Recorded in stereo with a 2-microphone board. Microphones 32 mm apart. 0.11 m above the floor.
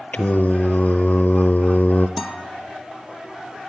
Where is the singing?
55° left (ahead or behind), 0.7 m.